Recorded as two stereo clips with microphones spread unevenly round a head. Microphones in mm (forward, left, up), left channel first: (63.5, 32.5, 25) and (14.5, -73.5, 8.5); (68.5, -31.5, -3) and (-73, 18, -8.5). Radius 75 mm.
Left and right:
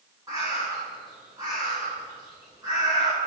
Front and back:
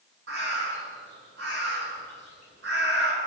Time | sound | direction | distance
0.3 | a bird | 170° left | 6.5 m